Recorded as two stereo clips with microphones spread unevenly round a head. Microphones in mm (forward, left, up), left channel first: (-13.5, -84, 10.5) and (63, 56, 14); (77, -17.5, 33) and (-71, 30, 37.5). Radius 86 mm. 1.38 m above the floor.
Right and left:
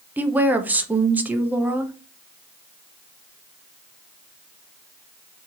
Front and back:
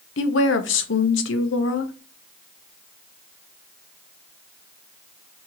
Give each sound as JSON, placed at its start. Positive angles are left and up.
{"t": 0.2, "sound": "a woman speaking", "azimuth_deg": -15, "distance_m": 0.7}